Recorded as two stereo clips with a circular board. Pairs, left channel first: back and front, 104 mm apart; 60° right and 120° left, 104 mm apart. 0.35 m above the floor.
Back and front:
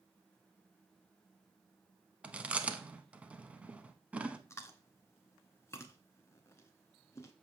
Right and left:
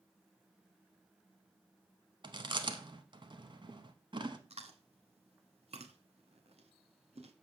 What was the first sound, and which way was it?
Chewing, 80° left.